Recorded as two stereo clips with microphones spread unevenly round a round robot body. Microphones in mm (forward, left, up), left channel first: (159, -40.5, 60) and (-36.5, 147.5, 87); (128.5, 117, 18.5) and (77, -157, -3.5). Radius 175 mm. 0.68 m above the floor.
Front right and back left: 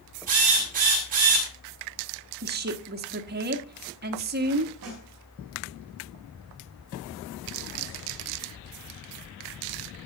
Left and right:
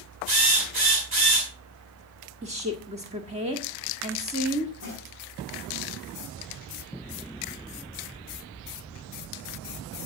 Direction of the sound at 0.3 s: 160° right.